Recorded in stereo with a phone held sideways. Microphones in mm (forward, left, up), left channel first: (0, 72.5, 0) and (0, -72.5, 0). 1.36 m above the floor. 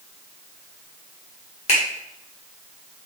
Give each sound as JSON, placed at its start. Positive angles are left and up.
{"t": 1.7, "sound": "a finger snap", "side_deg": 50, "distance_m": 1.6}